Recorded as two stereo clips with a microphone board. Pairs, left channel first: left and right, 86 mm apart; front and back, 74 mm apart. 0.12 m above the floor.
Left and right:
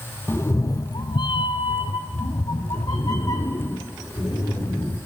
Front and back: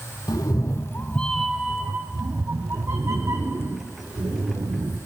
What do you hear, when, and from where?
0.3 s a cat meowing: 25° left, 0.7 m; by 5.0 s 140° left, 2 m